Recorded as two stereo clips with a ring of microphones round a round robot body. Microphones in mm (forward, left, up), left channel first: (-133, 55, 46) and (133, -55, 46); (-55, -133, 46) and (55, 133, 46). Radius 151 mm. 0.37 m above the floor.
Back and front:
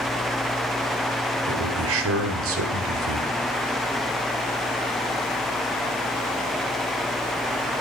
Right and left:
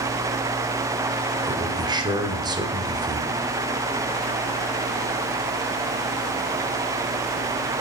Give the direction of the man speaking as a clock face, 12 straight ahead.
12 o'clock.